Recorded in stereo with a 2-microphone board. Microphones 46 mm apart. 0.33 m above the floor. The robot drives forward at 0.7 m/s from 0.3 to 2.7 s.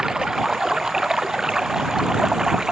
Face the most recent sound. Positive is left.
turn(degrees=-15)  # may be behind; listen again after turning